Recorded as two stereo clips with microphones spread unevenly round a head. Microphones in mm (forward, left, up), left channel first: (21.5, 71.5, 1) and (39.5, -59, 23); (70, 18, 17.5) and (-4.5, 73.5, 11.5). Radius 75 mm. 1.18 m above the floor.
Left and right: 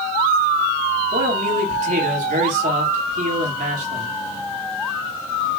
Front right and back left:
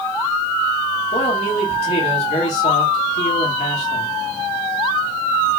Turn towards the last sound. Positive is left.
turn(degrees=-55)